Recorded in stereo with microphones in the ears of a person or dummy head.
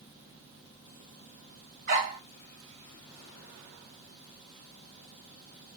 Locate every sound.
1.9 s a dog barking: 40° right (ahead or behind), 2 m